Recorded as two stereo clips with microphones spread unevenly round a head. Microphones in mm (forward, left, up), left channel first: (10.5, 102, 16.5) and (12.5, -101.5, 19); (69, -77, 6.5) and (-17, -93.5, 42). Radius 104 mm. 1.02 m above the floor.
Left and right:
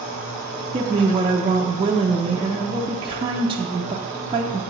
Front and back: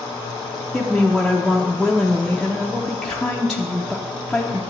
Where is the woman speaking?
40° right, 0.6 m.